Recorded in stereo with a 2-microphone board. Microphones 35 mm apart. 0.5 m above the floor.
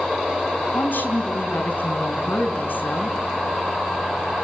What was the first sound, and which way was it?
A woman speaking, 70° left (ahead or behind).